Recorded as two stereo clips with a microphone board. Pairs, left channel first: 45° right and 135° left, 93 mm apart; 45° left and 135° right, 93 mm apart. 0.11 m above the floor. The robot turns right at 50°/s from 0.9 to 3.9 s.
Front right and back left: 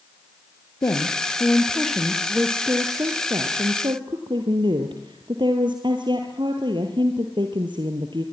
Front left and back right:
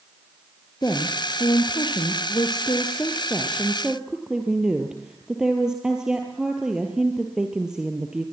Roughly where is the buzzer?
No buzzer in this recording.